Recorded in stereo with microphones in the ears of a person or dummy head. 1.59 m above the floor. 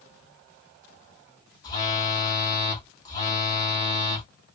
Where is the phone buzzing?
20° left (ahead or behind), 1.9 m.